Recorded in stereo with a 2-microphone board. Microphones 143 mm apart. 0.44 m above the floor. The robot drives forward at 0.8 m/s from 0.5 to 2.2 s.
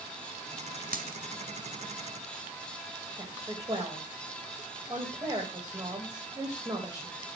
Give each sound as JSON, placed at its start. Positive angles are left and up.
{"t": 0.9, "sound": "a dropped coin", "side_deg": -85, "distance_m": 1.3}
{"t": 3.2, "sound": "a woman speaking", "side_deg": -30, "distance_m": 2.5}